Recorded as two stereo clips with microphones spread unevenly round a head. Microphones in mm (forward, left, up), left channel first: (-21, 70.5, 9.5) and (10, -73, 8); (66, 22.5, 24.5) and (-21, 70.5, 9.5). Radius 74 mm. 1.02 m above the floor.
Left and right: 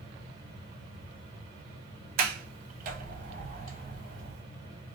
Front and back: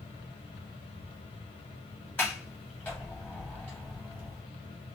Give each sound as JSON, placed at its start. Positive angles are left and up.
{"t": 0.0, "sound": "a fan", "azimuth_deg": -20, "distance_m": 1.1}
{"t": 2.2, "sound": "a sliding door", "azimuth_deg": -110, "distance_m": 0.5}